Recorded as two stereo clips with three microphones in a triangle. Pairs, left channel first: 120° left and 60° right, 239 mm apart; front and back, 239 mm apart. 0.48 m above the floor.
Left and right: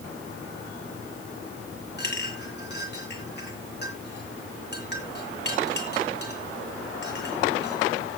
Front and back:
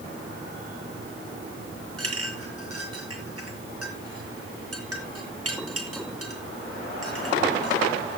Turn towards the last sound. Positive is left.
turn(degrees=165)